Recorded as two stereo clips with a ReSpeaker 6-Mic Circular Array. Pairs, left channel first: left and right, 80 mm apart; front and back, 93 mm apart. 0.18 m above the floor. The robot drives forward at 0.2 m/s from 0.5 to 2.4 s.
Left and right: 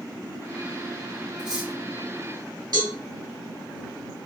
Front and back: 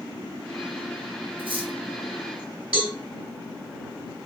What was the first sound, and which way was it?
Cutlery clinking, 170° right.